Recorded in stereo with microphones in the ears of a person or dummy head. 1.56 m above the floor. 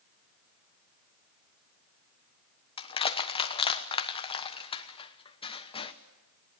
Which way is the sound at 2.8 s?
30° left (ahead or behind).